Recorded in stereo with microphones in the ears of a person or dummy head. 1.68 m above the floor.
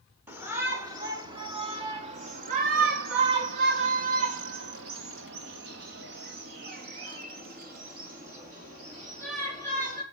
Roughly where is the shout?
Centre.